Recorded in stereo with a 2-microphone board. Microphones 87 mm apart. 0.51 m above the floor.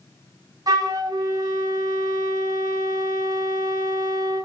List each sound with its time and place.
0.7 s a flute: 45° right (ahead or behind), 0.8 m